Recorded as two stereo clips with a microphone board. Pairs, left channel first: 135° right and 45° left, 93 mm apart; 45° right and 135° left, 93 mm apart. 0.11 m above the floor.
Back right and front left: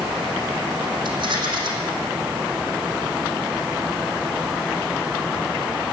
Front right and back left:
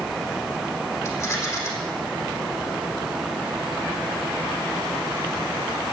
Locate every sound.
1.1 s a rattle: 15° left, 3.5 m